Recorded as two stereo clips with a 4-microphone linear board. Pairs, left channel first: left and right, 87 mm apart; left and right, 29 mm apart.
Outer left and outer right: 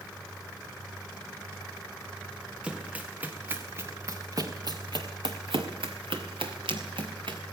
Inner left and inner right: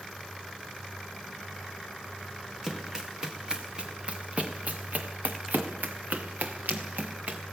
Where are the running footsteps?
10° right (ahead or behind), 2.5 m; by 7.4 s 65° right (ahead or behind), 2.5 m.